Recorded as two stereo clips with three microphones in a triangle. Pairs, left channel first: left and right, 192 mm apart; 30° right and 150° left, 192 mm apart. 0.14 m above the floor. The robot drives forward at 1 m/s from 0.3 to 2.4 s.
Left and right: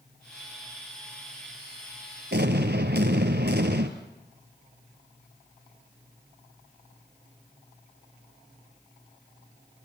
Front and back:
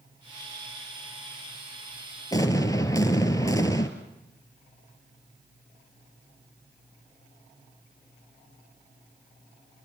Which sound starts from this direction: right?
An explosion, at 2.3 s.